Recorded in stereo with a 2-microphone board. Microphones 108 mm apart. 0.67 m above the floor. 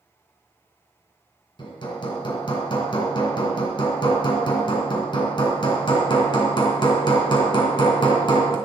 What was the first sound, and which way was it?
Hammering, 45° left (ahead or behind).